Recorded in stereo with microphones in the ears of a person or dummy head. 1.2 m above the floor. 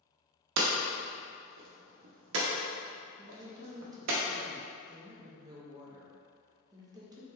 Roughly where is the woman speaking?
Centre.